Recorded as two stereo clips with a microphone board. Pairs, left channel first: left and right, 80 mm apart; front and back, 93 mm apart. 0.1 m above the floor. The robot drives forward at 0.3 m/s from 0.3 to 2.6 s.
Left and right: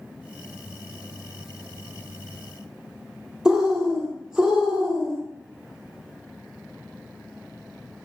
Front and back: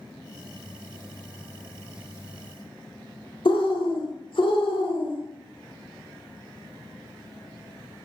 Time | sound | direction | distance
3.5 | a bird | 10° right | 1.0 m